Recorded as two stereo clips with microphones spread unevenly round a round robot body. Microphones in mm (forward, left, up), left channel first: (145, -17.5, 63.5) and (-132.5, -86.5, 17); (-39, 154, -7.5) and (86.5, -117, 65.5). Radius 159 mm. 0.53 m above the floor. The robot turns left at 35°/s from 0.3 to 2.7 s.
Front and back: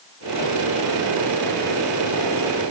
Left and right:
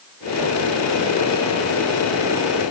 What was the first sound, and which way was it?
Only background noise.